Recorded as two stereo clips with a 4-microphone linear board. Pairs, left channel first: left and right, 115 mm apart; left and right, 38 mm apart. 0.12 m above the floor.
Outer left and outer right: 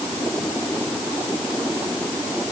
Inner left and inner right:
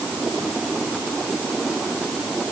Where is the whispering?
No whispering in this recording.